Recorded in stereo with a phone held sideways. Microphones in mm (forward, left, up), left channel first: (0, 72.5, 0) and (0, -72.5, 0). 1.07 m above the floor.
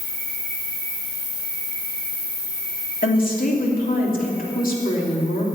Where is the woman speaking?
70° left (ahead or behind), 2.5 m.